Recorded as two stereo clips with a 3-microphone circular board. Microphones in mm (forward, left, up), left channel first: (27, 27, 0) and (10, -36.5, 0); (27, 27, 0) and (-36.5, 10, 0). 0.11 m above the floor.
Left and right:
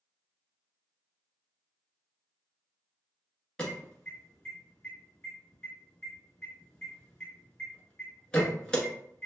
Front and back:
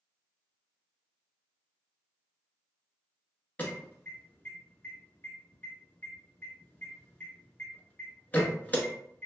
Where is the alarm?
15° left, 1.0 m.